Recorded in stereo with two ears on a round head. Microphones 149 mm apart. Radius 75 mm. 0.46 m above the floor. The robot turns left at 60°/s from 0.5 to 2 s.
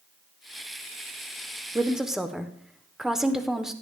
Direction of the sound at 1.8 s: 15° right (ahead or behind).